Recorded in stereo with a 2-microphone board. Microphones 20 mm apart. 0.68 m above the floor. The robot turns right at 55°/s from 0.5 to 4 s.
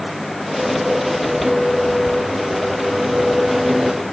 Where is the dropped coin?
I don't hear a dropped coin.